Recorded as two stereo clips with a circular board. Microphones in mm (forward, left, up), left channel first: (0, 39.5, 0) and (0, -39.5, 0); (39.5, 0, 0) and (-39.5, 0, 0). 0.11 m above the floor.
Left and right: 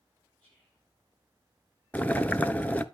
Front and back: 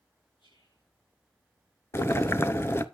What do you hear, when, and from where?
0.4 s whispering: 20° left, 8 m
1.9 s boiling: 35° left, 0.7 m